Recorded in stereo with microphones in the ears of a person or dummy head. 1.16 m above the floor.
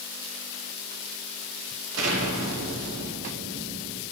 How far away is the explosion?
About 2.5 m.